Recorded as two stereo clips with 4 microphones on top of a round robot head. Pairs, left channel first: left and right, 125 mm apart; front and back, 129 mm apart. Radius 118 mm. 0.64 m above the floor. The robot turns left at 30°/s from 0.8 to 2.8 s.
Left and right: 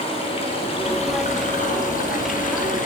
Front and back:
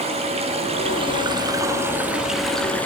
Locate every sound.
0.0 s running water: 140° left, 8.5 m; by 2.9 s 80° left, 8.5 m